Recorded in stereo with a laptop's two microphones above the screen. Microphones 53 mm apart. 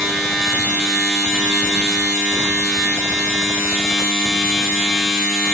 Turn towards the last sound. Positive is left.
turn(degrees=15)  # may be behind; listen again after turning